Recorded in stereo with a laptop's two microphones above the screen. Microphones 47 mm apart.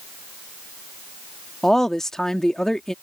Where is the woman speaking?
10° left (ahead or behind).